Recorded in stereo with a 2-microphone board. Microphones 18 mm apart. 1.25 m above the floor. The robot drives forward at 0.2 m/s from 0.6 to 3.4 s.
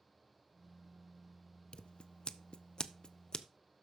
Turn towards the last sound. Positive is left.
turn(degrees=45)  # may be behind; listen again after turning